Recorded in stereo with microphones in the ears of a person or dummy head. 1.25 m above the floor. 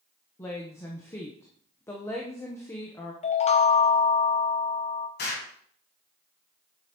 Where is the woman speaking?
15° left (ahead or behind), 1.0 m.